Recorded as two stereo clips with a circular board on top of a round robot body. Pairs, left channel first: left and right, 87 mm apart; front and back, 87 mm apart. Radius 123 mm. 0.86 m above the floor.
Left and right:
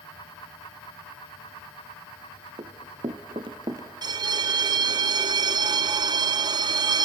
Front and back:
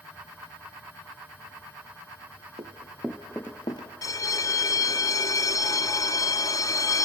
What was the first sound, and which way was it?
Running footsteps, 135° right.